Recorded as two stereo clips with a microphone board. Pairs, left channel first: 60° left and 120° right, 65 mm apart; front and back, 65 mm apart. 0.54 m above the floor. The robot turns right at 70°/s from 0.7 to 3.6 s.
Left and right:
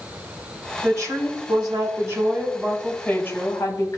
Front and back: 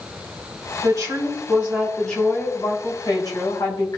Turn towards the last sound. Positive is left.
turn(degrees=25)